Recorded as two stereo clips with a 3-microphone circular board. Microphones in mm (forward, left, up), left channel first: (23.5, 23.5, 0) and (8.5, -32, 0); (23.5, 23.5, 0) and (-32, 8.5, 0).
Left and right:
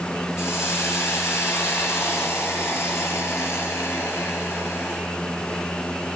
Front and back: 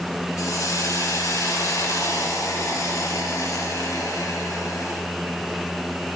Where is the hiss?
30° left, 4.5 m.